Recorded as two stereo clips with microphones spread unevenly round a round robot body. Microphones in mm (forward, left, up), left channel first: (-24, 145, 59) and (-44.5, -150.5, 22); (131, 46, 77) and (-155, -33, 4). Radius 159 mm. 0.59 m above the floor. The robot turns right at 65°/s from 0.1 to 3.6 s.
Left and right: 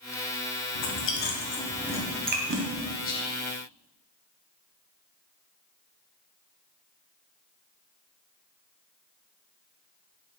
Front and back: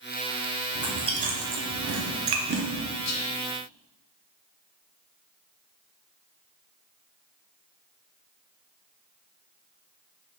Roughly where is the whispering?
Ahead left.